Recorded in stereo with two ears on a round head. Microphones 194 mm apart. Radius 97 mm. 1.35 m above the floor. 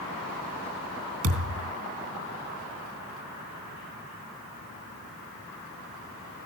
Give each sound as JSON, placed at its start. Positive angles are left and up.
{"t": 1.2, "sound": "a thud", "side_deg": -70, "distance_m": 3.0}